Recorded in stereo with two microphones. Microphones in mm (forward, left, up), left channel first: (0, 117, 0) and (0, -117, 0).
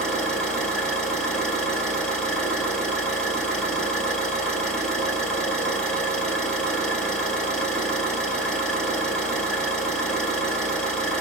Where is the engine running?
5° left (ahead or behind), 1.8 m.